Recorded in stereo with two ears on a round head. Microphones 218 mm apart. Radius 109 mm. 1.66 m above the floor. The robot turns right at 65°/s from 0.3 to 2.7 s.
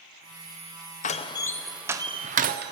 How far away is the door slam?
About 0.5 m.